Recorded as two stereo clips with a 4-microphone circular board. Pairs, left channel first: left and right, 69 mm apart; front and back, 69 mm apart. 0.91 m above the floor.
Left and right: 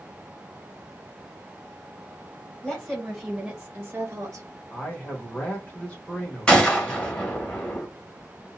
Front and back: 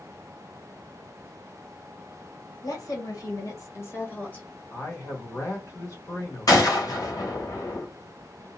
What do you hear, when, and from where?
2.6 s a woman speaking: 15° left, 1.3 m; by 4.5 s 75° right, 0.8 m
4.7 s a man speaking: 25° left, 1.4 m
6.5 s a gunshot: 15° left, 1.3 m